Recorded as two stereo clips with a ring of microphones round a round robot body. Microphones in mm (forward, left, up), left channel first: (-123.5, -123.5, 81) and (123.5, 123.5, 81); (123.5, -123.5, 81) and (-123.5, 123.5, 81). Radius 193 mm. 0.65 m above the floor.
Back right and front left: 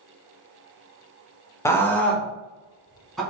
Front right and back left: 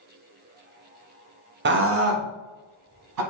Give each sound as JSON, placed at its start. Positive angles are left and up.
{"t": 1.6, "sound": "a scream", "azimuth_deg": 150, "distance_m": 0.8}